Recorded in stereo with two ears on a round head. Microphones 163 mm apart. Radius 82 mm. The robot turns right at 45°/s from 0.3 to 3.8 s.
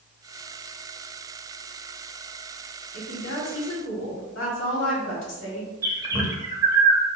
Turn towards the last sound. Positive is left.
turn(degrees=-20)  # may be behind; listen again after turning